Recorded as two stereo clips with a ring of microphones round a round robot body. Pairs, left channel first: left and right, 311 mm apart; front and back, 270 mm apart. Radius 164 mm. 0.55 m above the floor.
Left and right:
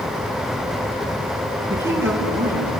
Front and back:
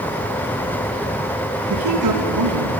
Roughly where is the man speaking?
Behind.